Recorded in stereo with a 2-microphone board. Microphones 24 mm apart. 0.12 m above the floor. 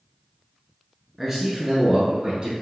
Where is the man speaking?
5° right (ahead or behind), 1.3 m; by 2.5 s 40° right (ahead or behind), 1.8 m.